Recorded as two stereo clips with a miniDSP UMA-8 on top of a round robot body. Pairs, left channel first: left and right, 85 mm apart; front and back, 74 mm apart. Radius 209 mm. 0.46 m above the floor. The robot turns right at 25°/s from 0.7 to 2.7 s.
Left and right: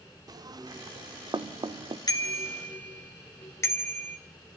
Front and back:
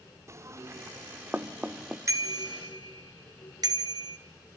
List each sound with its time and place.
0.3 s knocking: 130° right, 1.2 m; by 2.0 s 95° right, 1.2 m
2.1 s a bicycle bell: 135° left, 2.5 m; by 4.2 s 150° left, 2.5 m